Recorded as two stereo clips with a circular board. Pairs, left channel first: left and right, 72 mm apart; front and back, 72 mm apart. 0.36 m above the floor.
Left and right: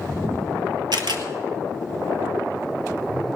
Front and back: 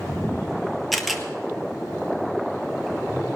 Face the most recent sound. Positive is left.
turn(degrees=-90)